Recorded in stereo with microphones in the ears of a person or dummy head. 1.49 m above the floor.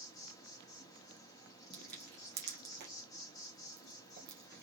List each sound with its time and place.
0.0 s an insect: 15° left (ahead or behind), 1.0 m
1.7 s crushing: 60° right (ahead or behind), 1.7 m